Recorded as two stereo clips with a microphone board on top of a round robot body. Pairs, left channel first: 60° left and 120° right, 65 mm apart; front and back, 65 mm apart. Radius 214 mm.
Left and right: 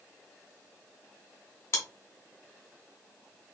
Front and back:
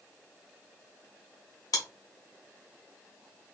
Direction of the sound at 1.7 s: 10° left.